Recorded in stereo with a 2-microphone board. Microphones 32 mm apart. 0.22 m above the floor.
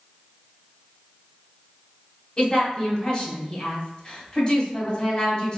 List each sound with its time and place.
2.4 s a woman speaking: 30° left (ahead or behind), 1.6 m